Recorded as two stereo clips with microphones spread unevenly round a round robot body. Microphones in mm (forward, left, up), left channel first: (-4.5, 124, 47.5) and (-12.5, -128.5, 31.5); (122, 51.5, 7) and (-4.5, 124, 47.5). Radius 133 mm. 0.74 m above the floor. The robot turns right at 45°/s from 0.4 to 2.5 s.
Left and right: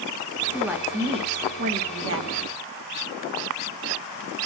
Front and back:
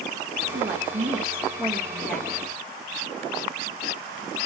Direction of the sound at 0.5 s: Straight behind.